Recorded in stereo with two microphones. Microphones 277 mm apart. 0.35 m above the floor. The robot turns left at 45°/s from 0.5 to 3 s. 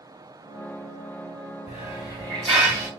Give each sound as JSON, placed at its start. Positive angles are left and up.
{"t": 1.7, "sound": "a hiss", "azimuth_deg": 40, "distance_m": 1.5}